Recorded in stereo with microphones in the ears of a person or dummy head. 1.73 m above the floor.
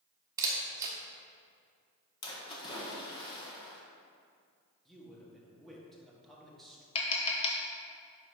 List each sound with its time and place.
0.4 s a camera shutter: 15° right (ahead or behind), 1.3 m
2.2 s a splash: 30° left (ahead or behind), 1.4 m
4.8 s a man speaking: 5° left (ahead or behind), 1.6 m
7.0 s tapping: 35° left (ahead or behind), 1.0 m